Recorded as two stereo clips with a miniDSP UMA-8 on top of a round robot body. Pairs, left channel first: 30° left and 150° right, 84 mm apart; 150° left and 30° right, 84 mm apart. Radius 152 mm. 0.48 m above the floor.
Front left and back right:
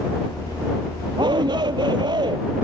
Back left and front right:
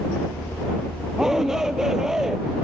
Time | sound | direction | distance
1.2 | a shout | 115° right | ?